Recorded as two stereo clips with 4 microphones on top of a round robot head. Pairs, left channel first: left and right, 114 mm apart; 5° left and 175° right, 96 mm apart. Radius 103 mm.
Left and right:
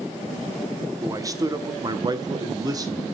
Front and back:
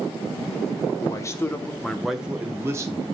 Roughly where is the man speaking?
Ahead right.